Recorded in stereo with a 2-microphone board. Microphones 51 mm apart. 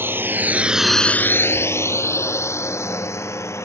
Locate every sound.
0.0 s a drone: 50° right (ahead or behind); by 3.6 s 65° left (ahead or behind)